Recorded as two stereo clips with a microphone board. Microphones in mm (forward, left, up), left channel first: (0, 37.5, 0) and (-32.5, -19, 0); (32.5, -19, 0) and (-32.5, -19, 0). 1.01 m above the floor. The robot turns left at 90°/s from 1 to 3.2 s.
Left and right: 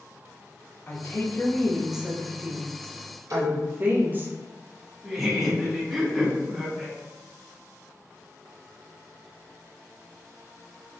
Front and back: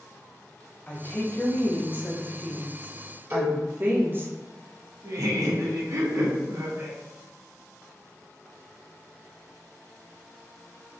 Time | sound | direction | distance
0.9 | a woman speaking | 45° left | 0.7 m
3.3 | a cowbell | 130° right | 1.5 m
5.0 | laughter | 155° left | 1.0 m